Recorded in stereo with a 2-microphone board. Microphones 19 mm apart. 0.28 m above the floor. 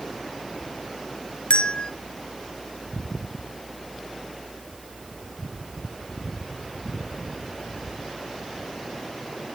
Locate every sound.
1.5 s a bell: 70° left (ahead or behind), 1.0 m